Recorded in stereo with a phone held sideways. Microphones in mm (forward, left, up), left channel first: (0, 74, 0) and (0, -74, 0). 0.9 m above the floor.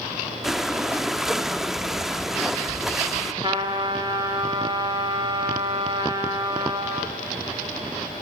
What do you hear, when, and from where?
0.4 s breathing: centre (ahead or behind), 0.7 m
3.4 s a trumpet: 35° right (ahead or behind), 1.6 m